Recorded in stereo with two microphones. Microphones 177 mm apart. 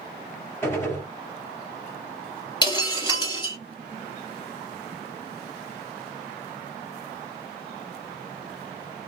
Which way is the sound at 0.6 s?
15° left (ahead or behind).